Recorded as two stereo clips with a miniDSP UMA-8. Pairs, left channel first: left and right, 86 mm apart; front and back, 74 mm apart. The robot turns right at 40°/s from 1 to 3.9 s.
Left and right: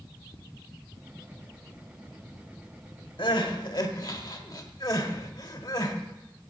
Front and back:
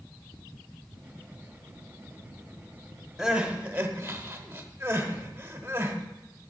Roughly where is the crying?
Left.